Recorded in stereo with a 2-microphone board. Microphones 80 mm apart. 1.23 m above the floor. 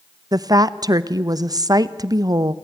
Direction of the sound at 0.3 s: 55° right (ahead or behind).